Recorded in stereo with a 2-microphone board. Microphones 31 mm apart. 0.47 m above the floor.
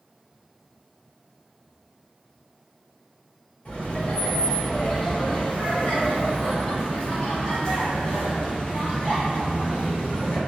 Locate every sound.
3.6 s laughter: 30° left (ahead or behind), 1.8 m